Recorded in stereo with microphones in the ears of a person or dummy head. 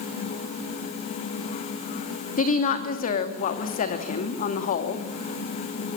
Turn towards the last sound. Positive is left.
turn(degrees=35)  # may be behind; listen again after turning